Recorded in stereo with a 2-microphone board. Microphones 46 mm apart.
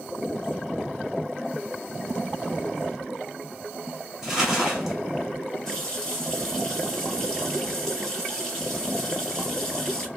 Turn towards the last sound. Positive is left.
turn(degrees=15)  # may be behind; listen again after turning